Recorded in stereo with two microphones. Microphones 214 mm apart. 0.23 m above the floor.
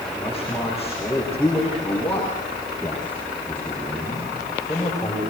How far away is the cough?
No cough in this recording.